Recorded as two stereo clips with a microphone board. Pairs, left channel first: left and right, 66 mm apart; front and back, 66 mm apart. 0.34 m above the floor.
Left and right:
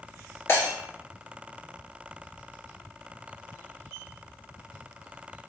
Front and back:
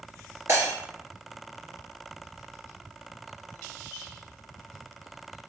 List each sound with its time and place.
0.5 s breaking glass: 135° left, 2 m